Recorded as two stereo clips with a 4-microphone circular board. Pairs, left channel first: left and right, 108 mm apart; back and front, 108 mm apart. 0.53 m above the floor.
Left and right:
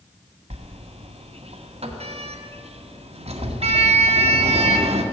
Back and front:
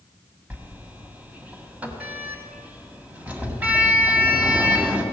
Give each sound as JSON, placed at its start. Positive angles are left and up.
{"t": 0.5, "sound": "a sliding door", "azimuth_deg": -75, "distance_m": 1.6}